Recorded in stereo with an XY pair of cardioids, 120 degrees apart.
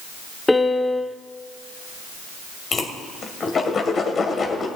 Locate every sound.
0.5 s a piano: 10° left, 0.7 m
2.7 s a whoosh: 40° left, 1.9 m